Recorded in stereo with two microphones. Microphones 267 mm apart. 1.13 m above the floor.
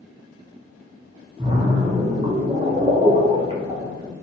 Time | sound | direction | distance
1.4 | a splash | 20° right (ahead or behind) | 1.1 m